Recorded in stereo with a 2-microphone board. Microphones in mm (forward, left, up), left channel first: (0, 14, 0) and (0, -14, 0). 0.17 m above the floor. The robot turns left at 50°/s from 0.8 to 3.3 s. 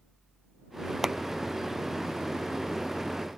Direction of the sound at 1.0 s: 20° right (ahead or behind).